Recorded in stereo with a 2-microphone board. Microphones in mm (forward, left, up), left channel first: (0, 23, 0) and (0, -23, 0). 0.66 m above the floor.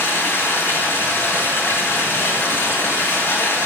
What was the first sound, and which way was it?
Running water, 70° left (ahead or behind).